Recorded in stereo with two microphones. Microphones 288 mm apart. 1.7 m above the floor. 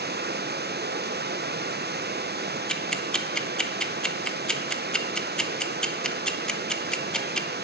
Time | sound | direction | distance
0.0 | running water | 35° right (ahead or behind) | 0.8 m
2.7 | ticking | 5° left (ahead or behind) | 0.9 m